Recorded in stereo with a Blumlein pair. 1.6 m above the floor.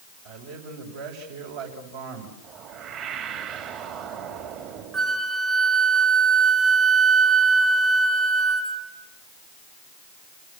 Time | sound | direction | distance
0.2 | a man speaking | 55° right | 7 m
2.4 | a whoosh | 35° right | 4 m
4.9 | a flute | 15° right | 1.8 m